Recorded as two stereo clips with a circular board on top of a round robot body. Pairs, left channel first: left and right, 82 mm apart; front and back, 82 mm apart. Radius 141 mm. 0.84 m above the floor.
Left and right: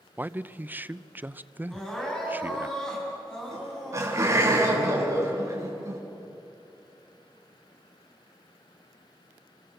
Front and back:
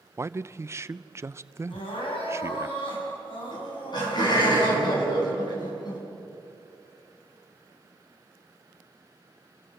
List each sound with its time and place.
0.2 s a man speaking: 145° right, 0.7 m
1.7 s crying: 10° left, 7 m
3.5 s laughter: 35° right, 7 m